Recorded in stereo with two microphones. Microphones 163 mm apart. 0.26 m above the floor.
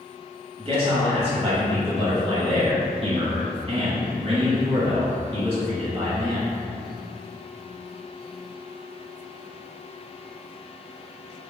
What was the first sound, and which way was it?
A man speaking, 35° right (ahead or behind).